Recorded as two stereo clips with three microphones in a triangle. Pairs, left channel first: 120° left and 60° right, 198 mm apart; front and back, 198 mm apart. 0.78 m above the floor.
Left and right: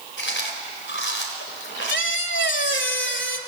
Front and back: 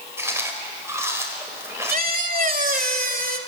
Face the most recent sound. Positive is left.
turn(degrees=135)